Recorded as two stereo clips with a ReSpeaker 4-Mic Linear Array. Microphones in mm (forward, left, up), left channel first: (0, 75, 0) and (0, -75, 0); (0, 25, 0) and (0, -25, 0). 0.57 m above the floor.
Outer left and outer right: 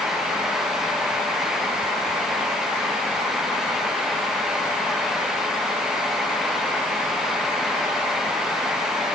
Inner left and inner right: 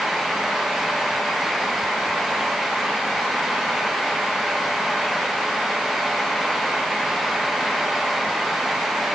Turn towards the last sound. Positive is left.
No sound to turn to.